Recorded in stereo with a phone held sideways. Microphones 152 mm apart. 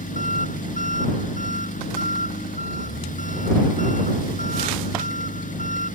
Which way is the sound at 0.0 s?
60° left (ahead or behind).